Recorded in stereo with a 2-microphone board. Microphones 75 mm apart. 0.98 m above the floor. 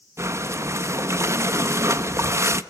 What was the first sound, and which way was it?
Breathing, 40° right (ahead or behind).